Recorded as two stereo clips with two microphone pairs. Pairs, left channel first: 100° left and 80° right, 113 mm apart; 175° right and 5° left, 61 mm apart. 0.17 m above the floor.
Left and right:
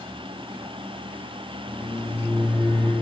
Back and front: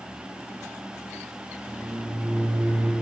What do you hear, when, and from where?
1.7 s a microwave: 35° right, 2.5 m